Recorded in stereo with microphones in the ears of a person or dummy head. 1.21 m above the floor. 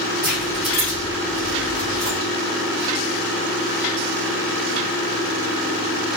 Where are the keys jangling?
15° right (ahead or behind), 0.9 m; by 2.2 s 25° left (ahead or behind), 1.6 m.